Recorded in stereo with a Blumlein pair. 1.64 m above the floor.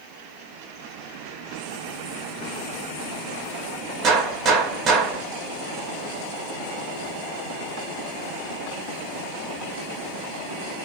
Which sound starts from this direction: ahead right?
A gunshot, at 4.0 s.